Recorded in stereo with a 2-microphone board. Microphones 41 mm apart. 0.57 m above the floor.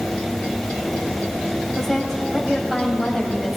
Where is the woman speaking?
Centre (ahead or behind), 3.5 m.